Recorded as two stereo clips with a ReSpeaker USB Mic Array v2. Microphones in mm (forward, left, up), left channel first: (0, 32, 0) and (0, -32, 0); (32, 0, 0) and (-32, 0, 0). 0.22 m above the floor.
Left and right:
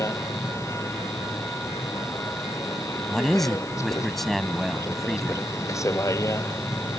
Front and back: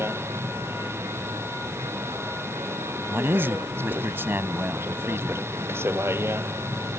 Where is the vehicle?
130° left.